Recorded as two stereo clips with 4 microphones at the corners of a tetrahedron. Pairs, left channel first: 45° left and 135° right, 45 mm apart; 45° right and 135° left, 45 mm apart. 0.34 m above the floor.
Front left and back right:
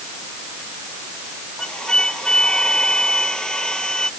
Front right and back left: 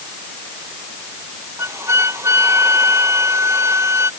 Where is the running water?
I don't hear running water.